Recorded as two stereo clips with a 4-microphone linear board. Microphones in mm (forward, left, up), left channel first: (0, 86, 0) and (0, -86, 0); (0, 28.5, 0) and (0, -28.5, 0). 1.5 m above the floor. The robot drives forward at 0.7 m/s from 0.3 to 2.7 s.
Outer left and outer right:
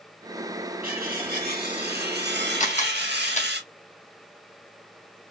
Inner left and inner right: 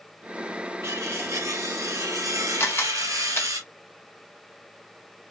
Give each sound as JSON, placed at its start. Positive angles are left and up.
{"t": 0.8, "sound": "cutlery clinking", "side_deg": -55, "distance_m": 2.5}
{"t": 2.6, "sound": "a camera shutter", "side_deg": 45, "distance_m": 1.2}